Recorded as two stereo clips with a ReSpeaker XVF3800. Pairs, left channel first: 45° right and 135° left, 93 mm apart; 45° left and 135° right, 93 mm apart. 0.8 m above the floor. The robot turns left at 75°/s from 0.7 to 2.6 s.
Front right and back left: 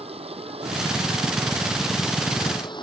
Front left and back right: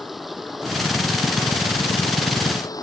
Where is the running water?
135° left; by 2.8 s 5° right.